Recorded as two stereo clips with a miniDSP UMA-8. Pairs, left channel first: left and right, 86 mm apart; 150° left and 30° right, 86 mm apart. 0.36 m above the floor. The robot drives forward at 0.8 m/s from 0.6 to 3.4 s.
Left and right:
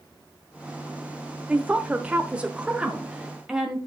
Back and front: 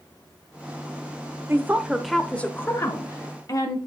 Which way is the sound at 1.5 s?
30° right.